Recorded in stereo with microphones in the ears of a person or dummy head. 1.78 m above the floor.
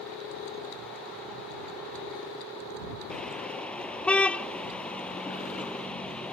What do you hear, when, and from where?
3.1 s a car horn: 5° left (ahead or behind)